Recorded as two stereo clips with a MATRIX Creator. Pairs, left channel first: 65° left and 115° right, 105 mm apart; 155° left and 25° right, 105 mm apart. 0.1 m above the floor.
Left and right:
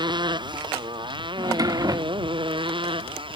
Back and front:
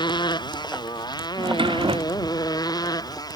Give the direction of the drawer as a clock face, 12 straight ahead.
2 o'clock.